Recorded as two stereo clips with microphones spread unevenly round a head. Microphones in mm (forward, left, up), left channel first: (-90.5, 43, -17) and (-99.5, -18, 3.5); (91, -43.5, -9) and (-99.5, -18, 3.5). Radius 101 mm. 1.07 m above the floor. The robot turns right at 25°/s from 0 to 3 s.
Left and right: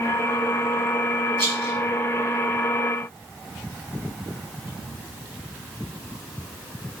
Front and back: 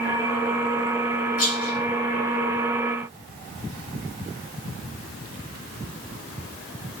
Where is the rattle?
50° right, 3.5 m; by 1.8 s 40° right, 3.5 m.